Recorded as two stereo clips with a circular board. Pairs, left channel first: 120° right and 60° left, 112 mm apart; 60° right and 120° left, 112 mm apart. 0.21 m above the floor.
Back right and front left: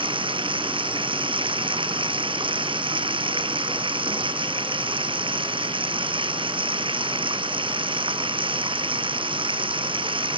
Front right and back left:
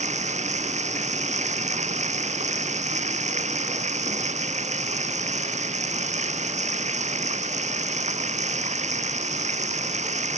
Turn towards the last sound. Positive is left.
turn(degrees=105)